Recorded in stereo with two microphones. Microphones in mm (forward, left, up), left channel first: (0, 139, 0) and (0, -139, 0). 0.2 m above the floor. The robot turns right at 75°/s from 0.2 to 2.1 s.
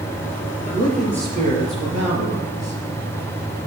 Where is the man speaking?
150° left, 4.5 m; by 2.8 s 100° right, 4.5 m.